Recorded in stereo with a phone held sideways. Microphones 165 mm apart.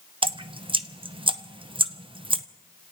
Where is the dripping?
30° right (ahead or behind), 0.6 m.